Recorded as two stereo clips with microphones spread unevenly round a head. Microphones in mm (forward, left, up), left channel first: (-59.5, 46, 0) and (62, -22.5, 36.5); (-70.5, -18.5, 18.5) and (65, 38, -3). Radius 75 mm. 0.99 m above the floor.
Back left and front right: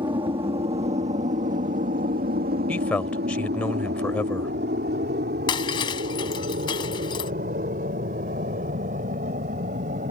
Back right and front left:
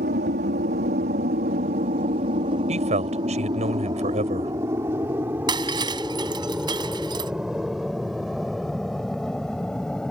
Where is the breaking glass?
85° left.